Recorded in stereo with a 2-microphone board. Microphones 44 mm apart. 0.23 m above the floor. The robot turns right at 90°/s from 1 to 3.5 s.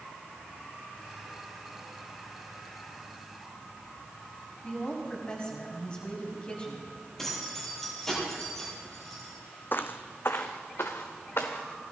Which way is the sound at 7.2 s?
10° left (ahead or behind).